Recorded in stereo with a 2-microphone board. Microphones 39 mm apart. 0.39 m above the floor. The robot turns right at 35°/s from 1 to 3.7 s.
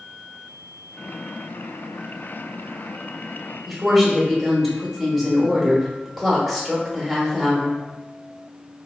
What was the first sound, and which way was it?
A woman speaking, centre (ahead or behind).